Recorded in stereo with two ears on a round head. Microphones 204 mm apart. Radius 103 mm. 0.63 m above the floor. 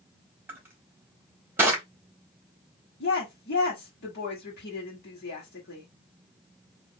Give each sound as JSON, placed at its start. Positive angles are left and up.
{"t": 0.5, "sound": "crushing", "side_deg": -10, "distance_m": 1.4}
{"t": 3.0, "sound": "a woman speaking", "side_deg": 50, "distance_m": 1.5}